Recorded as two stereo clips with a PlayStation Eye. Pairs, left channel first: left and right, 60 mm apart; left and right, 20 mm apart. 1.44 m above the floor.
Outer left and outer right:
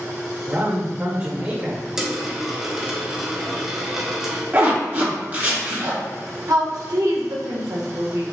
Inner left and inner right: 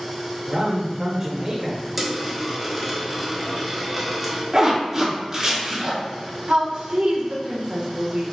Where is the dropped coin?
10° right (ahead or behind), 0.8 m.